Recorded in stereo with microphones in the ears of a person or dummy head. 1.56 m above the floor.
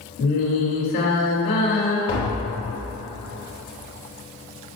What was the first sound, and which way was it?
Singing, 55° left (ahead or behind).